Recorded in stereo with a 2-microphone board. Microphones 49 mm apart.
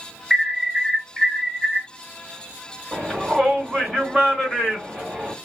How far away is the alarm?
About 3 m.